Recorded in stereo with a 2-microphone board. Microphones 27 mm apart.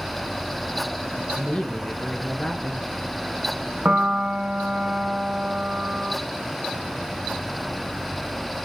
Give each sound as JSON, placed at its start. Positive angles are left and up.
{"t": 1.4, "sound": "a woman speaking", "side_deg": 35, "distance_m": 4.0}
{"t": 3.9, "sound": "a piano", "side_deg": -50, "distance_m": 2.5}